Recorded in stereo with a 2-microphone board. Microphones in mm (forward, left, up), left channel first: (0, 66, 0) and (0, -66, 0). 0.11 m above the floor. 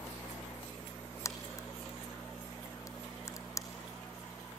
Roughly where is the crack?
Left.